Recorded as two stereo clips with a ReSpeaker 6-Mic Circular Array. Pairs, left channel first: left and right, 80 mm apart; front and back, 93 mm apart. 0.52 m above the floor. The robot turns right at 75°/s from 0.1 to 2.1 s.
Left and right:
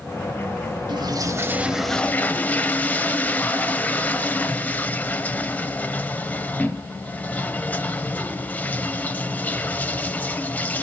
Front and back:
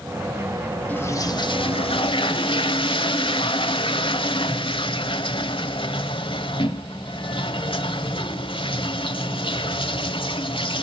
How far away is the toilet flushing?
About 1.1 m.